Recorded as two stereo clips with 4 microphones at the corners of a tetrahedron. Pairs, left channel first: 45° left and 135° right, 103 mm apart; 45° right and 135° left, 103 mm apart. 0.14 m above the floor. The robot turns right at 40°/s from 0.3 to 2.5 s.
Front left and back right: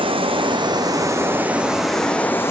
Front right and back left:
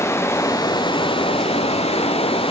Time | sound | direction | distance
0.0 | running water | 110° right | 0.9 m